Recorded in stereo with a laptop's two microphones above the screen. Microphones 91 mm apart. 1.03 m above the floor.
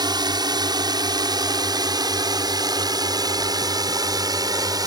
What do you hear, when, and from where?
0.0 s a drone: 50° right (ahead or behind); by 4.9 s 45° right (ahead or behind)